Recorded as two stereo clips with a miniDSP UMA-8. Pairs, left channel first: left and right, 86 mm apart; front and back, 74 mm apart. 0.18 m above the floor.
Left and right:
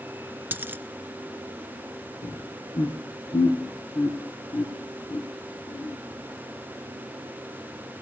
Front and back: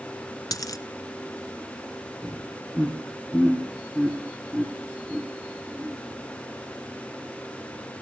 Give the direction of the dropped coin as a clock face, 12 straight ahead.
1 o'clock.